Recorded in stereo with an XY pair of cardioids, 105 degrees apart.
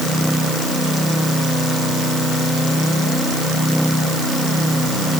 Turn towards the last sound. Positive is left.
No sound to turn to.